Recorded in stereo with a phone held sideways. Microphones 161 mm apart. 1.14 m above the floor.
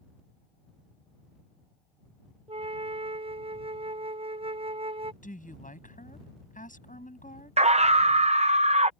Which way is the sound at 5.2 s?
55° left (ahead or behind).